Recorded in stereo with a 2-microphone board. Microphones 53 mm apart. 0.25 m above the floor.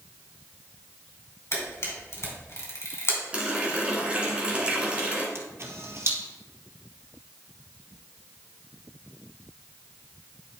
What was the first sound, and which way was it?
A camera shutter, 55° left (ahead or behind).